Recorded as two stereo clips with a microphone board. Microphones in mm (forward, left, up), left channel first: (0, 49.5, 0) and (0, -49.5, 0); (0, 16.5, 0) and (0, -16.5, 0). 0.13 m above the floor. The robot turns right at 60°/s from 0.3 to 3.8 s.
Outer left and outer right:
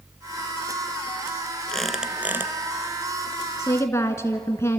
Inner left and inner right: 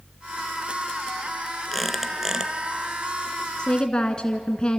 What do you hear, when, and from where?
1.7 s a squeak: 170° left, 1.1 m; by 2.5 s 140° right, 1.1 m
3.6 s a woman speaking: 30° left (ahead or behind), 1.2 m